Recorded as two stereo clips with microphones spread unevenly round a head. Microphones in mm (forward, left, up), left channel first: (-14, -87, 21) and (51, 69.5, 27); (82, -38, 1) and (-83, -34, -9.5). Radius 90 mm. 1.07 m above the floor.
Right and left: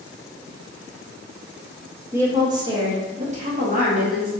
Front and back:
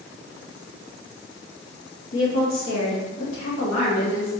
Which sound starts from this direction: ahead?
A woman speaking, at 2.1 s.